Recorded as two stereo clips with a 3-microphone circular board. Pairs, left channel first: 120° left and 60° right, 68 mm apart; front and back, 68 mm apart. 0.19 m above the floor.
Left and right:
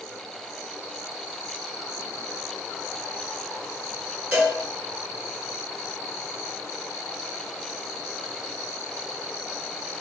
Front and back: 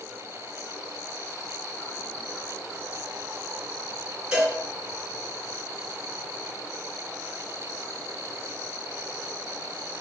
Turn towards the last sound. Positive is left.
turn(degrees=-115)